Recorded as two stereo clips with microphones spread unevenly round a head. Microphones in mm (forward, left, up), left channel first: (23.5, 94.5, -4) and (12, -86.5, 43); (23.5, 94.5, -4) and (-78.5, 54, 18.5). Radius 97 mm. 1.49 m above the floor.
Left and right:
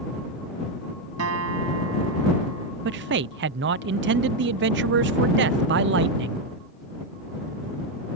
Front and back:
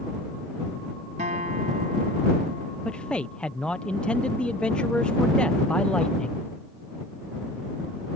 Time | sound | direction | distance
1.2 | a guitar | 105° right | ?
2.9 | a man speaking | 60° right | ?